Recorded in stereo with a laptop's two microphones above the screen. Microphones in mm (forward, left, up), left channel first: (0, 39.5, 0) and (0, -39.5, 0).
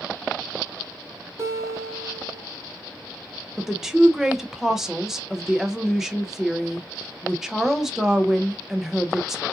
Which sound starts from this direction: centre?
A woman speaking, at 3.6 s.